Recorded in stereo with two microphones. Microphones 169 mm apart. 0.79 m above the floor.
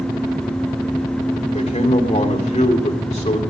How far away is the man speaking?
About 2.5 m.